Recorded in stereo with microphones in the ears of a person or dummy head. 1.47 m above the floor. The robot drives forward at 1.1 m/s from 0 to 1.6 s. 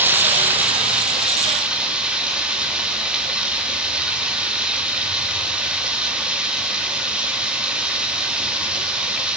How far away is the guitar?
I don't hear a guitar.